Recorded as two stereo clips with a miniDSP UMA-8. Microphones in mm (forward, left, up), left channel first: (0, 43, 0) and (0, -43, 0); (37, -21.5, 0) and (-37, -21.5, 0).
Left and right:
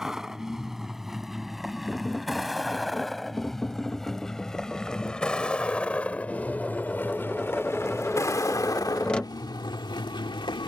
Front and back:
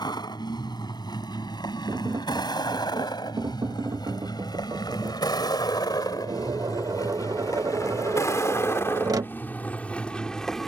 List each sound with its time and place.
0.0 s a vehicle: 5° right; by 10.7 s 85° left
1.9 s tapping: 165° left